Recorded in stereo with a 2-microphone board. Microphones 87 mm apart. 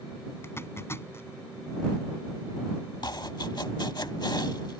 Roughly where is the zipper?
Left.